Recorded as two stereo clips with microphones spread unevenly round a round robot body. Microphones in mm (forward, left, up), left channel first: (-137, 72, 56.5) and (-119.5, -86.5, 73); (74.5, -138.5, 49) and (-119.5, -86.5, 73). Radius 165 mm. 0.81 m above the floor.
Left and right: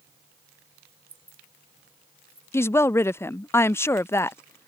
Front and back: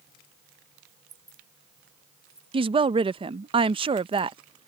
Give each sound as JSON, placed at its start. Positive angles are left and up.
{"t": 1.1, "sound": "keys jangling", "azimuth_deg": -145}
{"t": 2.5, "sound": "a woman speaking", "azimuth_deg": 125}